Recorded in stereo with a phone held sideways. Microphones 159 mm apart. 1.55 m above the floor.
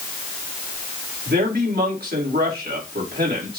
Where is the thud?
No thud in this recording.